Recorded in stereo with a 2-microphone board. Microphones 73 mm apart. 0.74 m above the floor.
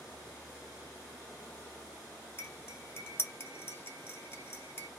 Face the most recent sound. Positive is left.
turn(degrees=35)  # may be behind; listen again after turning